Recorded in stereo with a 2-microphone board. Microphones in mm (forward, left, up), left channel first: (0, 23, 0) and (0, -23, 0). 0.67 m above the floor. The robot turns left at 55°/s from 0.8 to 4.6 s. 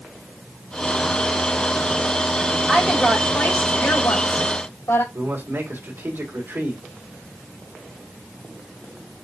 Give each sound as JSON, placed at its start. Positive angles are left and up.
{"t": 2.7, "sound": "a woman speaking", "azimuth_deg": -170, "distance_m": 2.5}
{"t": 5.1, "sound": "a man speaking", "side_deg": -65, "distance_m": 2.5}